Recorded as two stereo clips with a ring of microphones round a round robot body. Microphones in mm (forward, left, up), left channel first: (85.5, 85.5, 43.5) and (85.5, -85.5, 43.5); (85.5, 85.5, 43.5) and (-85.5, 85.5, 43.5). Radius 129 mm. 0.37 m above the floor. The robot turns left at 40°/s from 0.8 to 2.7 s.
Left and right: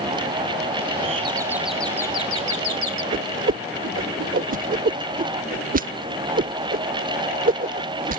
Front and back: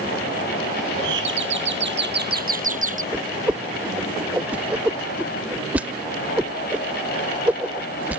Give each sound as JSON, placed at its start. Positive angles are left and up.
{"t": 1.0, "sound": "a doorbell", "azimuth_deg": -150}
{"t": 3.1, "sound": "a whoosh", "azimuth_deg": -100}